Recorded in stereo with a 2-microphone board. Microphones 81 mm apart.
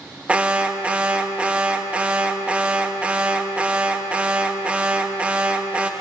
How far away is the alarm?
About 0.9 m.